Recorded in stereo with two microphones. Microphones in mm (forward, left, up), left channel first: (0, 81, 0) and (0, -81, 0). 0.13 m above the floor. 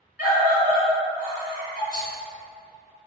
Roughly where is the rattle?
Right.